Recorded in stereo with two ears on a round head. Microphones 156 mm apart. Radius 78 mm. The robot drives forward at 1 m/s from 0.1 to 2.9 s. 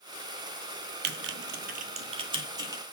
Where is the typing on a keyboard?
60° right (ahead or behind), 0.7 m; by 2.8 s 20° right (ahead or behind), 1.7 m.